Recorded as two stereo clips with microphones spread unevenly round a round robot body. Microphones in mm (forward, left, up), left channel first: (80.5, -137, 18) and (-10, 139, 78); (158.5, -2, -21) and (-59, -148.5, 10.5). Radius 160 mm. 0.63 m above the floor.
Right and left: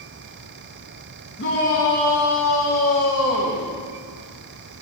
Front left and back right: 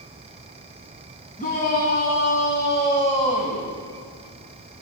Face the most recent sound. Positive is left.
turn(degrees=-35)